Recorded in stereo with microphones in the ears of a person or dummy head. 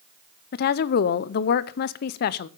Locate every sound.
0.5 s a woman speaking: 55° left (ahead or behind), 0.7 m